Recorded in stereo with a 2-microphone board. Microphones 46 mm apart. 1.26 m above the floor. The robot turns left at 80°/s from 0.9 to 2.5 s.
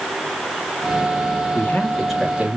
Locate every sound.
1.5 s a man speaking: 45° left, 2 m; by 2.6 s 30° right, 2 m